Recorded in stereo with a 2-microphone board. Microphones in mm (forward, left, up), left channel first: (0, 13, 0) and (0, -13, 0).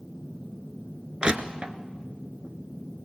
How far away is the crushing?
About 1.0 m.